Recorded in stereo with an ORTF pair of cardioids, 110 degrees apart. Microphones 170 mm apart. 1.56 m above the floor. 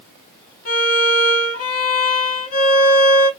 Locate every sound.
0.7 s a violin: 55° left, 1.9 m